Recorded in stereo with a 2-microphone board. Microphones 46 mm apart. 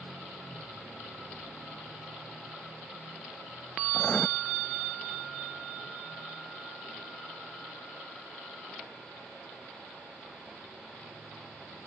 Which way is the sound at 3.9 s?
20° left (ahead or behind).